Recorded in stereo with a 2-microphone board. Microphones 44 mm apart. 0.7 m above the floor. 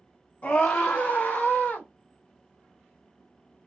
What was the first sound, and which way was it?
A scream, 35° left (ahead or behind).